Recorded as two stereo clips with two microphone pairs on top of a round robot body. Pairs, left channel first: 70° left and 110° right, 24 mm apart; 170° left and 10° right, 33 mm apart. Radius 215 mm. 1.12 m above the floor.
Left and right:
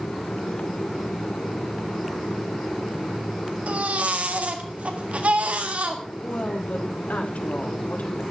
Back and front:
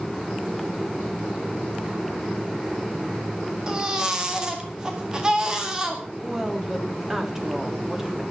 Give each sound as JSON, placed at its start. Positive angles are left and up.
{"t": 3.7, "sound": "a baby crying", "azimuth_deg": -85, "distance_m": 1.8}
{"t": 6.2, "sound": "a woman speaking", "azimuth_deg": 65, "distance_m": 3.5}